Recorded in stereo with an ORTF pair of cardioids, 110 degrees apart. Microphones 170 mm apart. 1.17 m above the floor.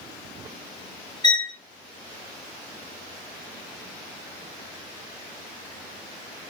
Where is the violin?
25° left, 1.1 m.